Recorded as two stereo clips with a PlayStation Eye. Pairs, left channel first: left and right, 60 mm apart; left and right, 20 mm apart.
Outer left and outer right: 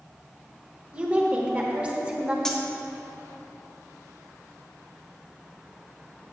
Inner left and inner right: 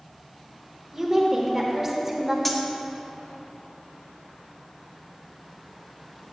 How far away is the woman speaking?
About 1.1 m.